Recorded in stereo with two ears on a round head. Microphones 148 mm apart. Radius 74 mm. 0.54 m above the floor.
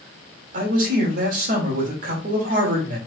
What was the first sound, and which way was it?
A man speaking, 55° right (ahead or behind).